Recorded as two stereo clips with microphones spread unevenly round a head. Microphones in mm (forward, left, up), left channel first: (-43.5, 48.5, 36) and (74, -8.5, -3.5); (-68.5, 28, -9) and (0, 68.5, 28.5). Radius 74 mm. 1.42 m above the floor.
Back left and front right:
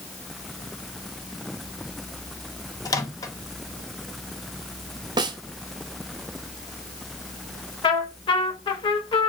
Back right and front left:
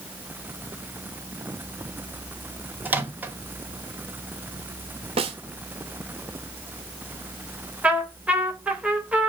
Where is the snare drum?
30° left, 1.7 m.